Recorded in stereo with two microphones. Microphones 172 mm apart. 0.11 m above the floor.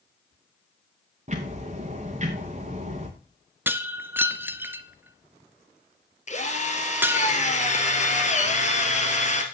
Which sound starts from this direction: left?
A drill, at 6.3 s.